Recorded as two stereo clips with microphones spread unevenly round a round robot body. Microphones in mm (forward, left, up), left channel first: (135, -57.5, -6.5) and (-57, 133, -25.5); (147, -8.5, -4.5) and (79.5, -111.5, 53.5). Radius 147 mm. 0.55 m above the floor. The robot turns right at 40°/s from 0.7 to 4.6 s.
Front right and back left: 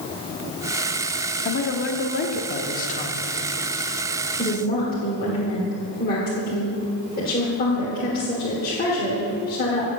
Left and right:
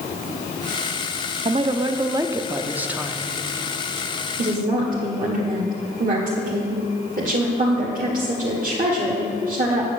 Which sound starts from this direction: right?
A woman speaking, at 4.4 s.